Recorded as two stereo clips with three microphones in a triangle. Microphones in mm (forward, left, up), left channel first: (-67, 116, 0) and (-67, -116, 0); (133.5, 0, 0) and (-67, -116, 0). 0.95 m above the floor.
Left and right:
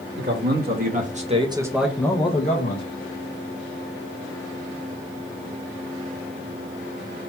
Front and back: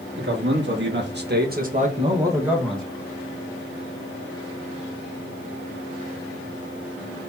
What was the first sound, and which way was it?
A man speaking, 120° right.